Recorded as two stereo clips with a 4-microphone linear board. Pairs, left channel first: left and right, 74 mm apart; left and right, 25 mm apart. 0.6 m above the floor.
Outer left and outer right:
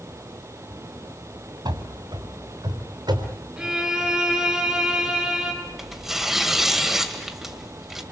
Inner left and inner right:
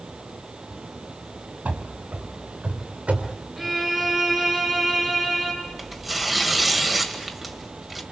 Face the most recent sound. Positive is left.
turn(degrees=-5)  # may be behind; listen again after turning